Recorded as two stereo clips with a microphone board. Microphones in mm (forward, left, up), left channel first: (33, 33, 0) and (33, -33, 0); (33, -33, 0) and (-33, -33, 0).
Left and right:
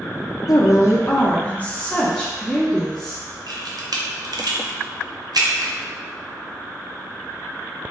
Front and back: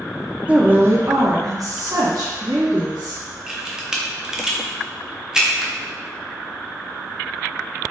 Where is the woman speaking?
110° left, 0.6 m; by 3.2 s 175° left, 1.6 m.